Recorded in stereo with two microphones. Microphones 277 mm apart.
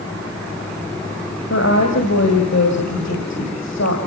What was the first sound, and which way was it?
A woman speaking, 70° left (ahead or behind).